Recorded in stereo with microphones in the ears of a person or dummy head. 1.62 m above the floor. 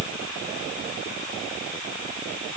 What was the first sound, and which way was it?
Only background noise.